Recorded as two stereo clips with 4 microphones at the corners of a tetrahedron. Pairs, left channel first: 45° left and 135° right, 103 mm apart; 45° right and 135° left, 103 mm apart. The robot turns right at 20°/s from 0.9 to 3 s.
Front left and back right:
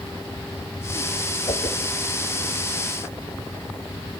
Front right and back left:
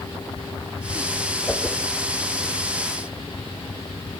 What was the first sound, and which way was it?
A whoosh, 30° left.